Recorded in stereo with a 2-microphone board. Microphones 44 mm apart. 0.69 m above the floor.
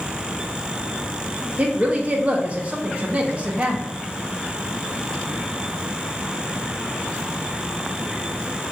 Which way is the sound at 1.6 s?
30° right (ahead or behind).